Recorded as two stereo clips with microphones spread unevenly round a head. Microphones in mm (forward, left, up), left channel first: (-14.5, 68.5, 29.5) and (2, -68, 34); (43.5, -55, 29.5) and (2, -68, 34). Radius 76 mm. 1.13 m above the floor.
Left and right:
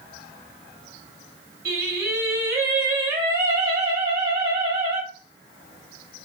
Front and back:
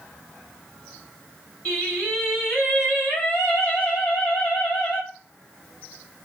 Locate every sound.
1.6 s singing: 55° right, 2.0 m